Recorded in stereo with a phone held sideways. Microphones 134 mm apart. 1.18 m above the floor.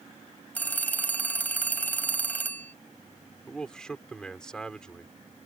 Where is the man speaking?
5° left (ahead or behind).